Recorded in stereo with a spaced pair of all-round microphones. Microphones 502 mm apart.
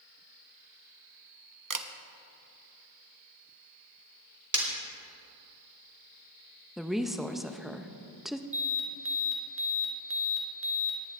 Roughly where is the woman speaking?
Centre.